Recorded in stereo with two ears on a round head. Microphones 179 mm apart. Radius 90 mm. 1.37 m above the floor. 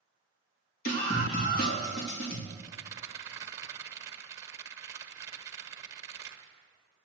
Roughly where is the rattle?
Centre.